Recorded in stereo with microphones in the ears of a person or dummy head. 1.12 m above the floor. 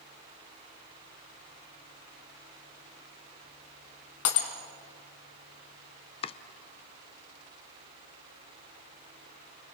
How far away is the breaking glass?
About 3.5 m.